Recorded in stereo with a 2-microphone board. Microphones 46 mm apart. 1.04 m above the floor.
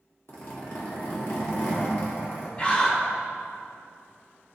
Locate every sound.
0.3 s a zipper: 55° left (ahead or behind), 1.6 m
2.6 s a scream: 25° left (ahead or behind), 1.1 m